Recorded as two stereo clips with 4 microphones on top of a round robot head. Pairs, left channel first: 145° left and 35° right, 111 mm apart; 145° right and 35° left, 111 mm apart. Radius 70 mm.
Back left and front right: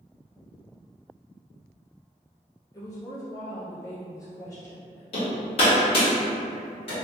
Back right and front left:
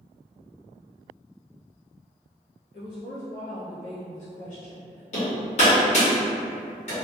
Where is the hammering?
175° right, 1.4 m.